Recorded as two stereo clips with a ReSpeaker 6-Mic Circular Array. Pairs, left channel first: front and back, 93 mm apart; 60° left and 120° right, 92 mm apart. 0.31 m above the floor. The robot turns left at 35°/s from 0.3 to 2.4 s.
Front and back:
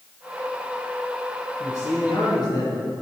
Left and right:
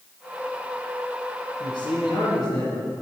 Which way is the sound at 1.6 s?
50° left.